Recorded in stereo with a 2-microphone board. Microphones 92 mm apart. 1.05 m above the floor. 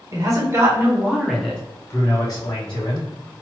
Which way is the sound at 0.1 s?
40° right (ahead or behind).